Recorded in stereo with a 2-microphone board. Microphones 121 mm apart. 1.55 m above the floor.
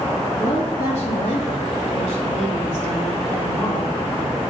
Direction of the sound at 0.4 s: 55° left (ahead or behind).